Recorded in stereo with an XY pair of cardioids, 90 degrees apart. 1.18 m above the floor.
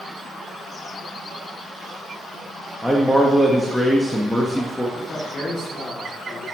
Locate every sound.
2.8 s a man speaking: straight ahead, 1.3 m
5.0 s a man speaking: 50° left, 2.5 m